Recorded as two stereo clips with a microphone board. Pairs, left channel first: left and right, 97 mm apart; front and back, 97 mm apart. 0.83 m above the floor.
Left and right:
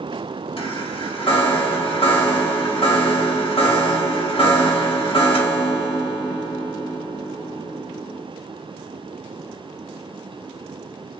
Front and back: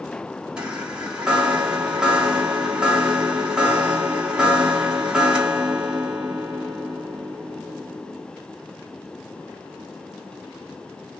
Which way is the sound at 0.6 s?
100° left.